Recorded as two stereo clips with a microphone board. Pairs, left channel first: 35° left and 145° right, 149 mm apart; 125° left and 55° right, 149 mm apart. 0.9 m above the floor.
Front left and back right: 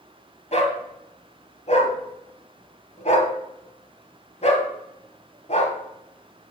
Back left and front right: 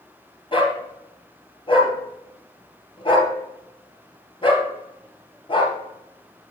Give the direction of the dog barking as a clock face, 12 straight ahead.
10 o'clock.